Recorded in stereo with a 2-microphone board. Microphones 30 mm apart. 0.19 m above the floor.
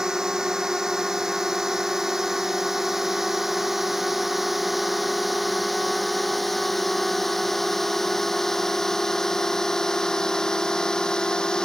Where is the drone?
20° right (ahead or behind); by 11.7 s 20° left (ahead or behind).